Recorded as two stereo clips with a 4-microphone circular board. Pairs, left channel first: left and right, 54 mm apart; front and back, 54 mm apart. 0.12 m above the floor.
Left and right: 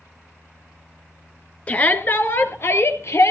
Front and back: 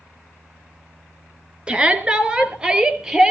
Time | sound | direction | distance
1.7 | a shout | 125° left | 1.6 m